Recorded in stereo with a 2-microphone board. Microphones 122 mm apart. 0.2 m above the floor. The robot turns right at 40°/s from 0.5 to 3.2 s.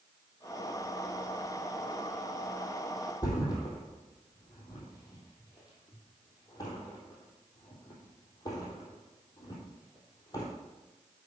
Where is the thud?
30° left (ahead or behind), 2.5 m.